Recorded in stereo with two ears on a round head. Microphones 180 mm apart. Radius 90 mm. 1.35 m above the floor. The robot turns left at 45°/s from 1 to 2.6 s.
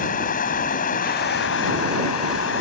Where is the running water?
135° left; by 2.6 s 65° left.